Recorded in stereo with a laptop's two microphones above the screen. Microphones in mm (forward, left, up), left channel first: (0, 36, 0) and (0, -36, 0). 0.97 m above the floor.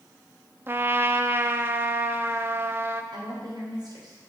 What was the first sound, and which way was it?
A trumpet, 30° right (ahead or behind).